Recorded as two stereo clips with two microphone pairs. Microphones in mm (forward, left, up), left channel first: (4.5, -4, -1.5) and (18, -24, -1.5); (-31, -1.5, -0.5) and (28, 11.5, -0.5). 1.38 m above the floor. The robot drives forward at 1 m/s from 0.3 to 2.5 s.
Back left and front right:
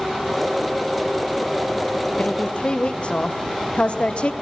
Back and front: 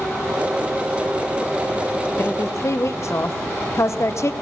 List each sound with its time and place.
2.2 s a woman speaking: 145° left, 0.6 m; by 4.3 s 160° left, 0.8 m